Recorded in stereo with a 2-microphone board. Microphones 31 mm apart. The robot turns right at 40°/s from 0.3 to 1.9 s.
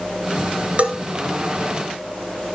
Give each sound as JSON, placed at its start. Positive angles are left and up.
{"t": 0.8, "sound": "a bell", "side_deg": -45, "distance_m": 1.2}